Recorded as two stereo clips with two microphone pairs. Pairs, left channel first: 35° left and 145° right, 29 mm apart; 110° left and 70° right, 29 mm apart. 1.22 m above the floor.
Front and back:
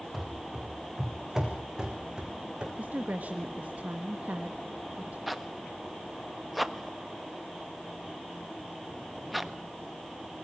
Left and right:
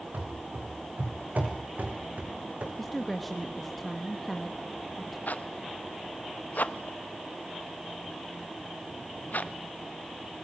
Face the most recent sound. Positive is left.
turn(degrees=125)